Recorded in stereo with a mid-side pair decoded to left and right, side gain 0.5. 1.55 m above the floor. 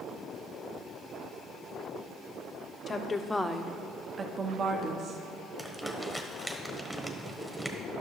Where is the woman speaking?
35° left, 0.8 m; by 5.2 s 55° right, 1.2 m.